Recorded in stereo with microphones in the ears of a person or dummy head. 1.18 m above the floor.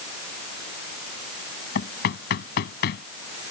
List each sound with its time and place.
1.8 s knocking: 65° left (ahead or behind)